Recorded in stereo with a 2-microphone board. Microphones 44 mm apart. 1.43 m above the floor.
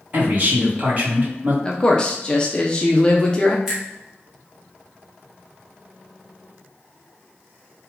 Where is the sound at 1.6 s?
20° left (ahead or behind), 0.6 m.